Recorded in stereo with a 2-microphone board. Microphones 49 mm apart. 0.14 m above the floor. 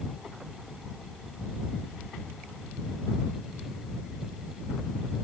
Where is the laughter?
No laughter in this recording.